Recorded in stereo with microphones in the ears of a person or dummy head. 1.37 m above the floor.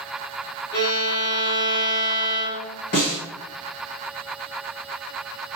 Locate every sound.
0.7 s a violin: 65° left (ahead or behind), 1.9 m
2.9 s a snare drum: 50° left (ahead or behind), 1.7 m